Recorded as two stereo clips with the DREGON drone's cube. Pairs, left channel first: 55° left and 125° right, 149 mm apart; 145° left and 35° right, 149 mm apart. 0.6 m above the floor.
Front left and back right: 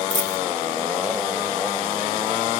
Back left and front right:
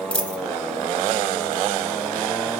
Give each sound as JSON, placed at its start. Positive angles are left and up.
{"t": 0.1, "sound": "a dropped coin", "azimuth_deg": 65, "distance_m": 1.6}